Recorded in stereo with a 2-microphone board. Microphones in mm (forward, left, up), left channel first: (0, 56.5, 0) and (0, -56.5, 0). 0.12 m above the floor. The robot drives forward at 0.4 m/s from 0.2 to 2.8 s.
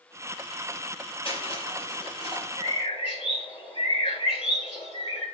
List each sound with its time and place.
1.2 s crushing: 55° left (ahead or behind), 3 m
2.6 s a bird: 60° left (ahead or behind), 3 m; by 5.2 s 55° left (ahead or behind), 3 m